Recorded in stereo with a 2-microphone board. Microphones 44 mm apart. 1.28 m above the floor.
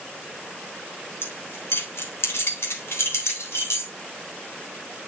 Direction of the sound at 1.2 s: 65° left (ahead or behind).